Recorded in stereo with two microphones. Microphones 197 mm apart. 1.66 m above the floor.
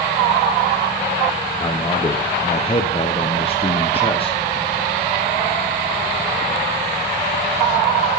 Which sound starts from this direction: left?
A man speaking, at 1.6 s.